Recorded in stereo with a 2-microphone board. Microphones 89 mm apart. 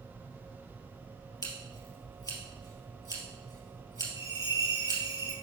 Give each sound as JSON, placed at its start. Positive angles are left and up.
{"t": 1.4, "sound": "scissors", "side_deg": 45, "distance_m": 2.0}
{"t": 4.2, "sound": "a bell", "side_deg": -35, "distance_m": 3.0}